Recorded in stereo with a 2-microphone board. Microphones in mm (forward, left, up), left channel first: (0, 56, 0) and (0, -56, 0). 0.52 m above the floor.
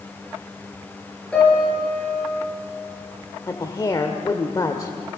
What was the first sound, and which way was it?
A piano, 10° left (ahead or behind).